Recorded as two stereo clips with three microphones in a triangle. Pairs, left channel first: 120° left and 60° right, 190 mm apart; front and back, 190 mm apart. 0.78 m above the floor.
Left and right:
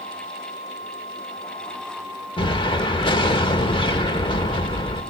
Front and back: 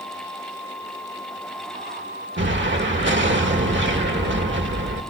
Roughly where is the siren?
I don't hear a siren.